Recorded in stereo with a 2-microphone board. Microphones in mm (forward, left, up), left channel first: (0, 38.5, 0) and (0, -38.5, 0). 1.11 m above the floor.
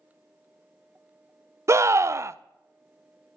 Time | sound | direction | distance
1.7 | a scream | 40° right (ahead or behind) | 0.5 m